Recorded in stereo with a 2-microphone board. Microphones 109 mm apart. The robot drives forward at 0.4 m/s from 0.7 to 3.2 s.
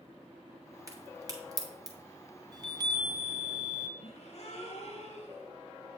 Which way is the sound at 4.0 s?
60° left (ahead or behind).